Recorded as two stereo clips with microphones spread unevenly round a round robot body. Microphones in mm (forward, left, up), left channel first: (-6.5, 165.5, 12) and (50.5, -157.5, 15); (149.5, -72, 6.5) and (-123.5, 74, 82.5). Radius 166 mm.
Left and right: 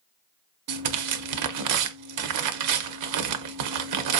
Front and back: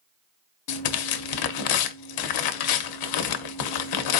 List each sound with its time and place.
0.7 s tearing paper: 45° right, 0.6 m